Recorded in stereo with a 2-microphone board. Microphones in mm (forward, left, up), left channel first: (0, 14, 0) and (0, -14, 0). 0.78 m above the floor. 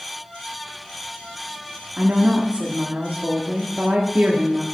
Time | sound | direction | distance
2.0 | a woman speaking | 55° right (ahead or behind) | 1.3 m